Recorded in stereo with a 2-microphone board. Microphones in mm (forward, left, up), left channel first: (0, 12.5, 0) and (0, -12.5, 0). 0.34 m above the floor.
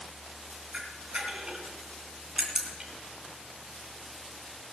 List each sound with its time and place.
0.7 s a camera shutter: 30° right (ahead or behind), 2.5 m